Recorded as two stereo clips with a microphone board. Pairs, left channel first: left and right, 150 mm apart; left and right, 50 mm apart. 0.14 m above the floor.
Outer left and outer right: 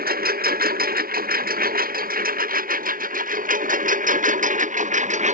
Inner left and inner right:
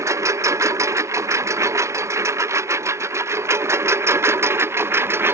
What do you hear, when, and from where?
0.0 s a lawn mower: 85° right; by 5.3 s 55° right (ahead or behind)